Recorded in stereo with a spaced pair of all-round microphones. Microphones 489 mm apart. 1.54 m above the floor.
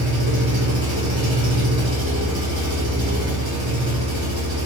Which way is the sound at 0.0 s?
65° right (ahead or behind).